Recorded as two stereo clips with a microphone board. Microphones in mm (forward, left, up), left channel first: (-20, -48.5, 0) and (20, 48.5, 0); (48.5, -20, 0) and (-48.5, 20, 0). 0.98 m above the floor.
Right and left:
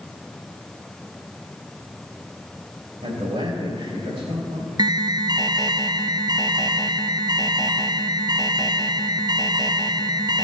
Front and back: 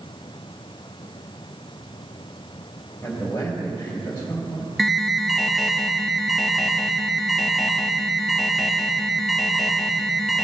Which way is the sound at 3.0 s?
50° left.